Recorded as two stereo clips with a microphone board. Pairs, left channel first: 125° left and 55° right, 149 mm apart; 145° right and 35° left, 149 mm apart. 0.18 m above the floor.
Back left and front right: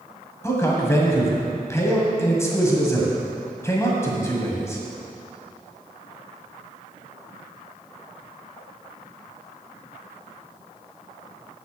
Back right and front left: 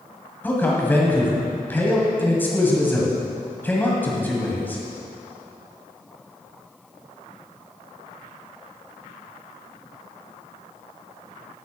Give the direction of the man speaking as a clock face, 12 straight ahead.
7 o'clock.